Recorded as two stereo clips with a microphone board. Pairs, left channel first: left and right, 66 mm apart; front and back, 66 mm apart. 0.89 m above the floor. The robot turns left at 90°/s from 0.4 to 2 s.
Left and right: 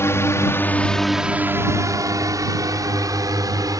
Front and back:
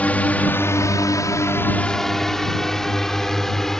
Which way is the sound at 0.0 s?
60° left.